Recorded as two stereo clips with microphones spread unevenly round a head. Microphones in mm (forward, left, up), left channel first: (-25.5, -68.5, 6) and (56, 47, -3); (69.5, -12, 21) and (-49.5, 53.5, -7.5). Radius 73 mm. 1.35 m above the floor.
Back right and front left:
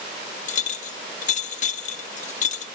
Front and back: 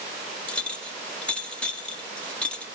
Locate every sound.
0.5 s a clink: 105° right, 1.2 m